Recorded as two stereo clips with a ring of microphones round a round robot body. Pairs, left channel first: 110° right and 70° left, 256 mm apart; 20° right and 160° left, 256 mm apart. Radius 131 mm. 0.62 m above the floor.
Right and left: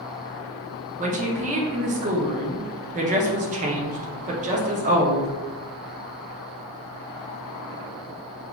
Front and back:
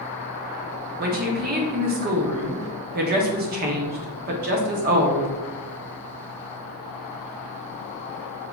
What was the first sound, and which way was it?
A woman speaking, 120° left.